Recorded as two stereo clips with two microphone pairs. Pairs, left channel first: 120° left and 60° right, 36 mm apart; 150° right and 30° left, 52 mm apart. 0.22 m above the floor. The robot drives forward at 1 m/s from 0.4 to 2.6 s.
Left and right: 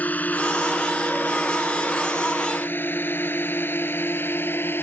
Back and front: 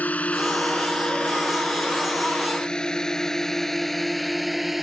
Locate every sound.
0.0 s a drone: 155° left; by 4.8 s 120° left